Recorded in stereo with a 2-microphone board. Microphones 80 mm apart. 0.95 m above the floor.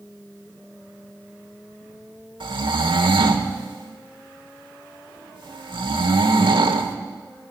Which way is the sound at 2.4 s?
75° right (ahead or behind).